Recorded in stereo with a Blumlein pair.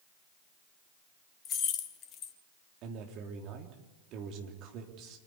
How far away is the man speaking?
About 3 m.